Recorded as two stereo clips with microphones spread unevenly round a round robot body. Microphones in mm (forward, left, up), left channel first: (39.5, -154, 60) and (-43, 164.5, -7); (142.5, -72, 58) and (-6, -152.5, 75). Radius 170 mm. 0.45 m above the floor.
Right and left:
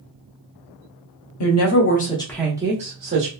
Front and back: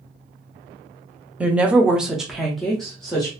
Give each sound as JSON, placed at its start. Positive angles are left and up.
{"t": 1.4, "sound": "a woman speaking", "azimuth_deg": -65, "distance_m": 0.8}